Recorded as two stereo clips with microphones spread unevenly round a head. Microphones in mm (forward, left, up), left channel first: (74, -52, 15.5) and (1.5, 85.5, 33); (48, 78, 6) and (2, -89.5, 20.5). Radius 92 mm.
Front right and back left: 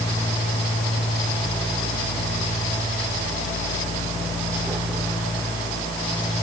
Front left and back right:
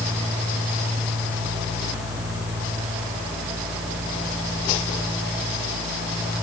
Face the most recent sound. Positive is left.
No sound to turn to.